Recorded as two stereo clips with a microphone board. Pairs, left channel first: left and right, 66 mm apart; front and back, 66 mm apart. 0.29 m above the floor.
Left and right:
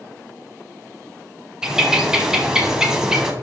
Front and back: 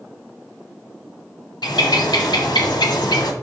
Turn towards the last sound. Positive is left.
turn(degrees=-10)